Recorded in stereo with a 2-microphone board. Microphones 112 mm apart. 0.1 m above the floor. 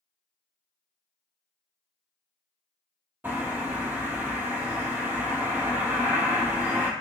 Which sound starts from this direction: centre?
A bird, at 3.2 s.